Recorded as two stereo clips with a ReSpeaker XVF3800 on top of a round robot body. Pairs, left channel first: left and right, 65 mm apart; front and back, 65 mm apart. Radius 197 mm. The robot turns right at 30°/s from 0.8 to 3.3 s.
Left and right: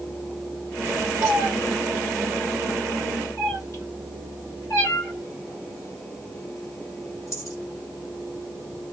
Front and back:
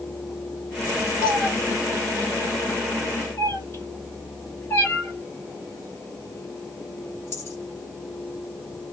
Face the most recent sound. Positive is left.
turn(degrees=55)